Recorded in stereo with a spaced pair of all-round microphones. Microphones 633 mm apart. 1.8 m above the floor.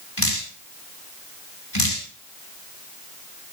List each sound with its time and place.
0.2 s dripping: 40° left (ahead or behind), 4 m